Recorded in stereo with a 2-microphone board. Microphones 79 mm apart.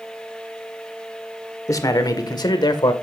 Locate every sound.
1.7 s a man speaking: 45° left (ahead or behind), 1.7 m; by 2.9 s 65° left (ahead or behind), 2 m